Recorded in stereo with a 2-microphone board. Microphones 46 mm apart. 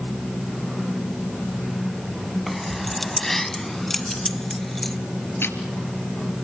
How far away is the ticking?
About 2.5 m.